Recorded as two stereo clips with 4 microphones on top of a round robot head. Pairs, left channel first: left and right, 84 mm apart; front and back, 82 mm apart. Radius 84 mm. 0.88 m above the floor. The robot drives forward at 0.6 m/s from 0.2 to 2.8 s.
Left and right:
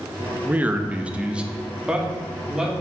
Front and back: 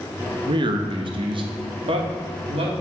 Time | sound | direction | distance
0.5 | a man speaking | 160° right | 0.8 m